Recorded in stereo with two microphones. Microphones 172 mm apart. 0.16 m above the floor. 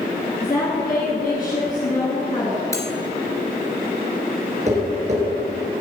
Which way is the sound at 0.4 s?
50° left (ahead or behind).